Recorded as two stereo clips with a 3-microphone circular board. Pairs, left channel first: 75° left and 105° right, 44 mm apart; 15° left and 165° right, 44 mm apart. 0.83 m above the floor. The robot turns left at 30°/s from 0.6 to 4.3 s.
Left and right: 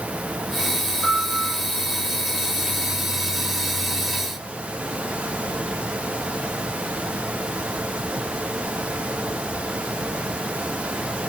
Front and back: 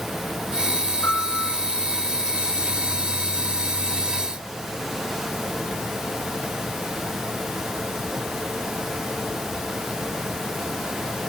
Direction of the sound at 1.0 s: 60° right.